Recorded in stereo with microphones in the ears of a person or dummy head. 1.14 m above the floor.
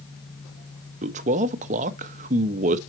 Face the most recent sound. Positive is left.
turn(degrees=-35)  # may be behind; listen again after turning